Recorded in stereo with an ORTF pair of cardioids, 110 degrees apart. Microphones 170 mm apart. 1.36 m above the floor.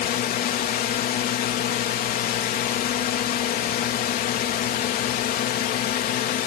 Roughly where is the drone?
Ahead left.